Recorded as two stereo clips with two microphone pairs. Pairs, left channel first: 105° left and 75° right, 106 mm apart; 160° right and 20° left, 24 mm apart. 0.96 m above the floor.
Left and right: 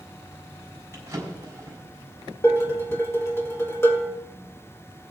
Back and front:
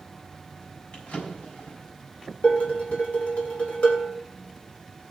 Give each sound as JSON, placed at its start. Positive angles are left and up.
{"t": 0.9, "sound": "a drawer", "azimuth_deg": -140, "distance_m": 4.0}
{"t": 2.4, "sound": "dishes clattering", "azimuth_deg": 170, "distance_m": 1.9}